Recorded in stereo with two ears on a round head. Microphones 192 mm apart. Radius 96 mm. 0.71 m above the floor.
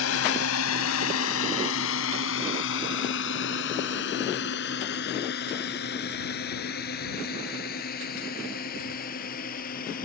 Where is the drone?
75° left (ahead or behind); by 10.1 s 40° left (ahead or behind).